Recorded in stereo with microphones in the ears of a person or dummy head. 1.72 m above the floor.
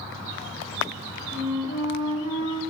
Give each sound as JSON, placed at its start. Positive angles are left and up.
{"t": 1.3, "sound": "a flute", "side_deg": 50, "distance_m": 2.5}